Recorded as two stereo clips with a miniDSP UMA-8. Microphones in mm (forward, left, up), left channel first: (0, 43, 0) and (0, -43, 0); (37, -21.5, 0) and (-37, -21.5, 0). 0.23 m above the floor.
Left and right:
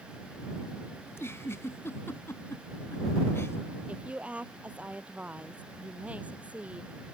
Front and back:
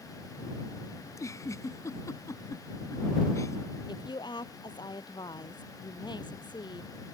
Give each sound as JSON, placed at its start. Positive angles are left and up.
{"t": 1.1, "sound": "a giggle", "azimuth_deg": 35}
{"t": 3.9, "sound": "a woman speaking", "azimuth_deg": -15}